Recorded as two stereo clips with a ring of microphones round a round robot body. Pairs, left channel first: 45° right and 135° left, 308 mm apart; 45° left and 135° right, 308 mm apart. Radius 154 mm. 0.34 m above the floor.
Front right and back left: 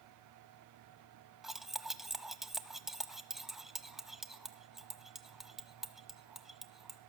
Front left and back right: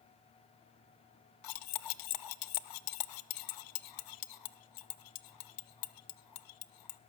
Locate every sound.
1.4 s cutlery clinking: 45° left, 0.9 m